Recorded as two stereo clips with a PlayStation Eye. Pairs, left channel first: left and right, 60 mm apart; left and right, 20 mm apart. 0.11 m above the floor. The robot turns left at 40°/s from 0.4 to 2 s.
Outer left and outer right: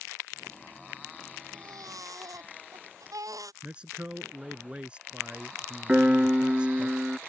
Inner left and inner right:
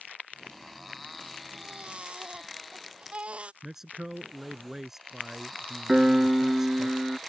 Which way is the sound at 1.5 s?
85° right.